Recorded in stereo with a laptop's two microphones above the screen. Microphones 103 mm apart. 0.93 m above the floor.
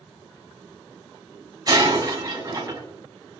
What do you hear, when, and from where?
1.7 s breaking glass: 35° right (ahead or behind), 4 m